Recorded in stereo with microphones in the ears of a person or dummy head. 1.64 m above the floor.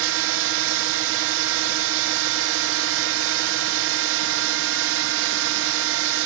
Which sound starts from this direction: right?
A drone, at 0.0 s.